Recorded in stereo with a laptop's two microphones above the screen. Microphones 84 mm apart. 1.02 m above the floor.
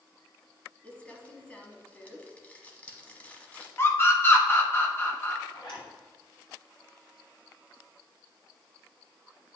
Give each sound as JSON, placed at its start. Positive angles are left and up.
{"t": 0.8, "sound": "crumpling", "side_deg": 20, "distance_m": 1.1}
{"t": 3.8, "sound": "a scream", "side_deg": 25, "distance_m": 1.5}
{"t": 5.5, "sound": "a zipper", "side_deg": 60, "distance_m": 2.5}